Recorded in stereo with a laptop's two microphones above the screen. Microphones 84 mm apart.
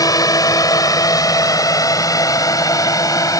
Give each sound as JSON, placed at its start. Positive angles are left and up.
{"t": 0.0, "sound": "a drone", "side_deg": 45}